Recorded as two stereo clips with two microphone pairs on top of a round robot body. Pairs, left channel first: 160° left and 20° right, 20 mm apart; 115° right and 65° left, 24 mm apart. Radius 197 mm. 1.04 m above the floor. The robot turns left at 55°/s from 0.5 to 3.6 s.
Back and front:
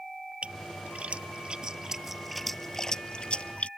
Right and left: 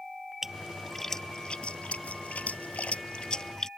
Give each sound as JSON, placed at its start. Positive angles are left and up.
{"t": 0.4, "sound": "a splash", "azimuth_deg": -10}